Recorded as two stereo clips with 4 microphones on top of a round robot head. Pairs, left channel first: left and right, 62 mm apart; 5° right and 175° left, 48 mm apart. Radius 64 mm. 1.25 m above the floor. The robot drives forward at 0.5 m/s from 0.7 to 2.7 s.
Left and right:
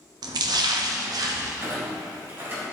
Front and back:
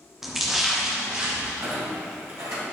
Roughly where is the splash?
Right.